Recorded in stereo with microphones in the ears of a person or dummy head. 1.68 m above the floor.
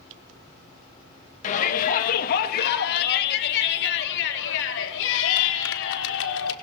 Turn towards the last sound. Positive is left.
turn(degrees=70)  # may be behind; listen again after turning